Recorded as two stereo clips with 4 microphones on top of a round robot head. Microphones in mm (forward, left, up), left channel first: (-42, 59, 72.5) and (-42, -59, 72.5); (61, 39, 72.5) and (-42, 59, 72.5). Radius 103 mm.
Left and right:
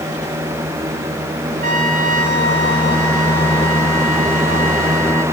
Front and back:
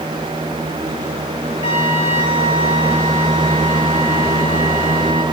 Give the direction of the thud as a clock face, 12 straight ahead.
I don't hear a thud.